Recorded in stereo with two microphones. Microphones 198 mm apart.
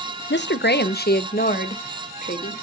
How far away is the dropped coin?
I don't hear a dropped coin.